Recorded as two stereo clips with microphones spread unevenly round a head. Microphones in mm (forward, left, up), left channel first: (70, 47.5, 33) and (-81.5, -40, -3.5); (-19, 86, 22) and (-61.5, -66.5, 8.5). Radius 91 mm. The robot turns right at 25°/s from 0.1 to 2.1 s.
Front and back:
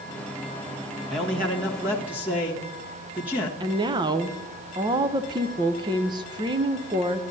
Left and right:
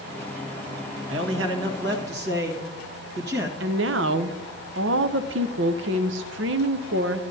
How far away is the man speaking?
About 1.4 m.